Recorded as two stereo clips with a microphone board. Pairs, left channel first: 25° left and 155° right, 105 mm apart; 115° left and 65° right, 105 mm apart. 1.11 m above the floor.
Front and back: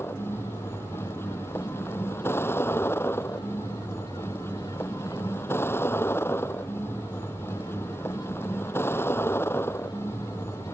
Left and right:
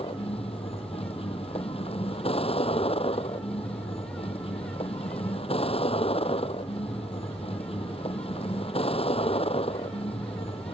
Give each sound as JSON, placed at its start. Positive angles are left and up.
{"t": 0.0, "sound": "a vehicle", "azimuth_deg": 90}